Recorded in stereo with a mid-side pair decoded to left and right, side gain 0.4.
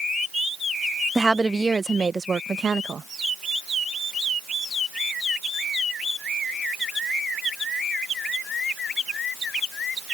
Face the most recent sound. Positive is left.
turn(degrees=-50)